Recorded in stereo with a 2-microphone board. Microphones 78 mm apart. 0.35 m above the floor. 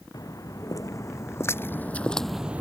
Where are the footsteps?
50° left (ahead or behind); by 2.6 s 20° right (ahead or behind).